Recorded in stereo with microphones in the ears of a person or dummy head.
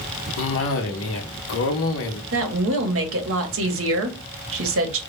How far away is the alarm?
I don't hear an alarm.